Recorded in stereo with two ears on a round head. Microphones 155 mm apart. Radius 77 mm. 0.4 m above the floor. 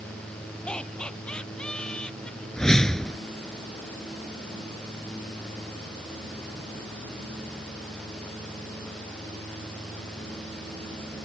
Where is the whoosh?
5° left (ahead or behind).